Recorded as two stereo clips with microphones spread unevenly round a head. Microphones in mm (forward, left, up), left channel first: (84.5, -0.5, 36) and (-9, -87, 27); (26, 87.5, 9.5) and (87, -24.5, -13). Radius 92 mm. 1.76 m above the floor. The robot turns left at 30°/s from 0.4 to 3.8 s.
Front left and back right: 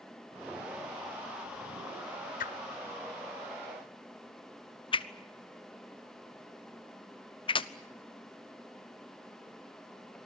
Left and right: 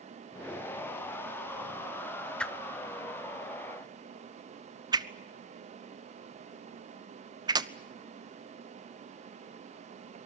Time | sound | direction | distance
2.4 | a whoosh | 40° left | 1.1 m